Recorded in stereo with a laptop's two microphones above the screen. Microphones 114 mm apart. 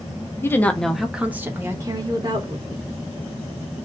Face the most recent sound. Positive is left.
turn(degrees=-45)  # may be behind; listen again after turning